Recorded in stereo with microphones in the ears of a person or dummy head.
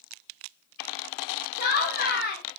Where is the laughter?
50° left (ahead or behind), 0.9 m.